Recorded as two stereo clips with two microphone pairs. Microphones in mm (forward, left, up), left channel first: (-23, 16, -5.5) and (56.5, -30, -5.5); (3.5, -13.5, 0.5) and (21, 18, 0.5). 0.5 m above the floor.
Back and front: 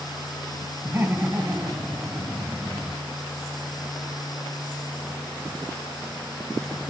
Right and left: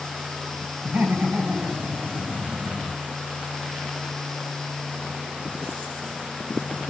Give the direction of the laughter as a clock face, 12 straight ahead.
11 o'clock.